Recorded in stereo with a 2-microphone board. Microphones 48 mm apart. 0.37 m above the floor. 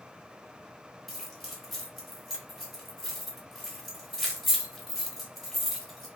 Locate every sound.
1.1 s keys jangling: centre (ahead or behind), 1.0 m